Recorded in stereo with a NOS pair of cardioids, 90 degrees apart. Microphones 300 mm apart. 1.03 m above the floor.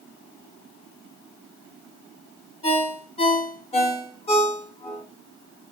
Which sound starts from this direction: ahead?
A ringtone, at 2.6 s.